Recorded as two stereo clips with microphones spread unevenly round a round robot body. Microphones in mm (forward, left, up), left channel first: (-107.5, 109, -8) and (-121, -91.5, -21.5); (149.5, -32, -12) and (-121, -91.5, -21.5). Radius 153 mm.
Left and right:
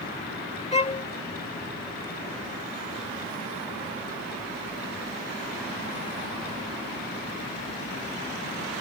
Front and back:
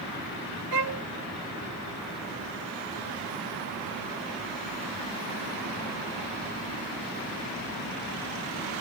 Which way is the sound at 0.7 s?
145° left.